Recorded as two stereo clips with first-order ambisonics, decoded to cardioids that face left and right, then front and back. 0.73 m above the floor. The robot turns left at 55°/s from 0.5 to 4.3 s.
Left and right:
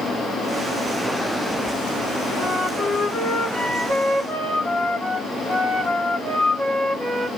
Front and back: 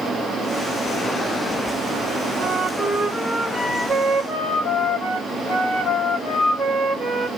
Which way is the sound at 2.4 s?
135° left.